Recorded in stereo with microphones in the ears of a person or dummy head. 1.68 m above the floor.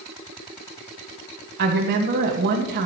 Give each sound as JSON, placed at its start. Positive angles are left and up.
{"t": 1.6, "sound": "a woman speaking", "side_deg": -55, "distance_m": 1.9}